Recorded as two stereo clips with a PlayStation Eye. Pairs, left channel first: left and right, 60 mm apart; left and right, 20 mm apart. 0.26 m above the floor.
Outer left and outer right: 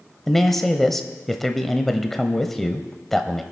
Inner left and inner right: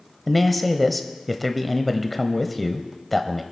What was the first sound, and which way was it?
A man speaking, 5° left (ahead or behind).